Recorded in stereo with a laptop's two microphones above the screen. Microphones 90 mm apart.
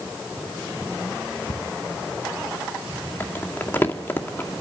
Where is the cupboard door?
60° left (ahead or behind), 5 m.